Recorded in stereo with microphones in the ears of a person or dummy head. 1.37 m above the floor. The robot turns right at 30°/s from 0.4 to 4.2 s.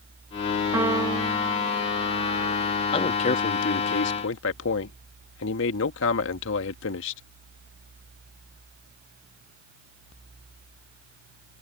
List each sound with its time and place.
0.7 s a piano: 165° right; by 2.6 s 110° right
2.9 s a man speaking: 30° left; by 7.2 s 70° left